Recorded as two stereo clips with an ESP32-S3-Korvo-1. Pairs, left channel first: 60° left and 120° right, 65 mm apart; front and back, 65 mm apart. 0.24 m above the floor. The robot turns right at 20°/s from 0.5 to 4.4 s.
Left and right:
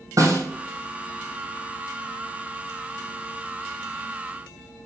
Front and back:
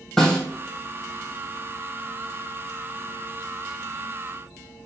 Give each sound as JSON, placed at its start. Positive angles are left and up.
{"t": 0.2, "sound": "a snare drum", "azimuth_deg": -85, "distance_m": 2.5}